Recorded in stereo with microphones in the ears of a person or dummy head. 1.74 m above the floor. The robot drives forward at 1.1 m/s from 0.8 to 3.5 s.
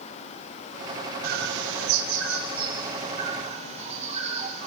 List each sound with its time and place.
1.2 s a bird: 60° right (ahead or behind), 1.2 m; by 4.7 s 30° right (ahead or behind), 2 m